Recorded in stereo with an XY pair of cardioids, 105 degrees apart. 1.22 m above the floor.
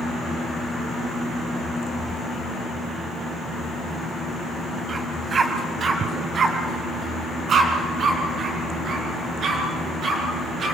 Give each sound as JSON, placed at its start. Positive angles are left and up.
{"t": 4.9, "sound": "a dog barking", "azimuth_deg": -35, "distance_m": 2.5}